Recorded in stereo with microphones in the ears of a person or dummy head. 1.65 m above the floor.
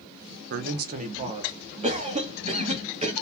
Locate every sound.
0.5 s a man speaking: 60° right (ahead or behind), 0.7 m; by 1.7 s 30° right (ahead or behind), 1.3 m
1.8 s a cough: 40° right (ahead or behind), 1.3 m